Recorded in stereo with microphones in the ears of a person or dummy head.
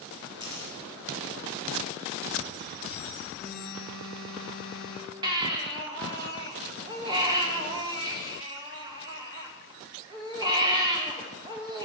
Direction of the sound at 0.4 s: 25° right (ahead or behind).